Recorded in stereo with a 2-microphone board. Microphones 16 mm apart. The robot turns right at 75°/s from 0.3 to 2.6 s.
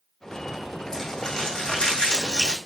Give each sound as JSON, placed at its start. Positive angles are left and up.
{"t": 0.9, "sound": "crumpling", "azimuth_deg": 20, "distance_m": 3.0}